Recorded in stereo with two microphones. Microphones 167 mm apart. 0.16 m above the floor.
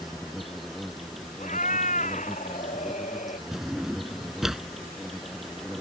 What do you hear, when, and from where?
0.0 s an insect: centre (ahead or behind)
1.4 s a cat meowing: 50° left (ahead or behind)
3.5 s a drawer: centre (ahead or behind)